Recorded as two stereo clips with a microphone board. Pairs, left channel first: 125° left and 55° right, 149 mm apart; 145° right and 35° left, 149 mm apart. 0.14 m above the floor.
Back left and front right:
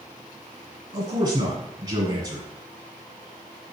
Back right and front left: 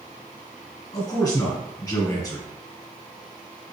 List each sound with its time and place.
0.9 s a man speaking: 95° right, 1.4 m